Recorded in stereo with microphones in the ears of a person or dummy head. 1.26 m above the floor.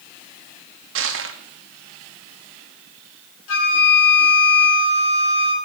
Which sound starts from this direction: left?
A flute, at 3.5 s.